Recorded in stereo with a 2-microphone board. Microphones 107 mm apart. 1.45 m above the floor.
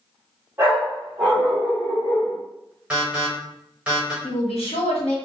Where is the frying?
I don't hear frying.